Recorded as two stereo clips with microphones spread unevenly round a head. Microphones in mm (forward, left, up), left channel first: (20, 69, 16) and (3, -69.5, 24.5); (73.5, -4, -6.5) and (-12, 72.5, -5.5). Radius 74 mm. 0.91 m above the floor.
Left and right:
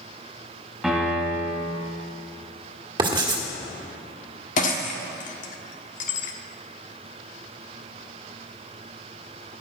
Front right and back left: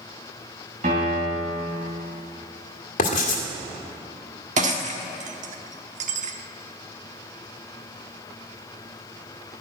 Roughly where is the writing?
Ahead right.